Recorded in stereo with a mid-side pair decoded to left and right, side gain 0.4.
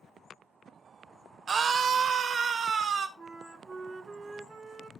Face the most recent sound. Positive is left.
turn(degrees=-50)